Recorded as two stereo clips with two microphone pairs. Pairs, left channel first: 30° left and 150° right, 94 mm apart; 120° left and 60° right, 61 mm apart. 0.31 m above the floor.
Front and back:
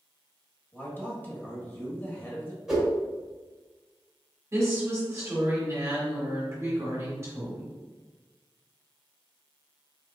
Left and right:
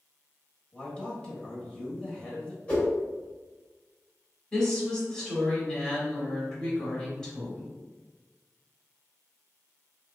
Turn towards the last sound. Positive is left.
turn(degrees=-170)